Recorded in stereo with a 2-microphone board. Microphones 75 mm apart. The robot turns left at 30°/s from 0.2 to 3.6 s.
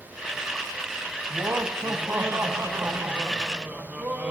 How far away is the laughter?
About 1.1 m.